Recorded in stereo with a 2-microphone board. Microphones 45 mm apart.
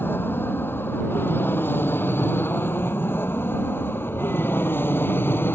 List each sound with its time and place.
0.0 s an aircraft: 55° left (ahead or behind)